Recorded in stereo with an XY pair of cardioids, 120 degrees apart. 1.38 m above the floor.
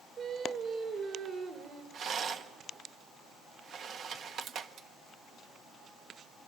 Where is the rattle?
55° right, 1.3 m.